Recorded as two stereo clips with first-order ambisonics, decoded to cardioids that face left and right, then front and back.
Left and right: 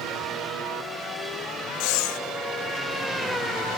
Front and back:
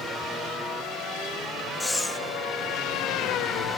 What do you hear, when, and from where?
1.8 s breathing: 80° left, 0.7 m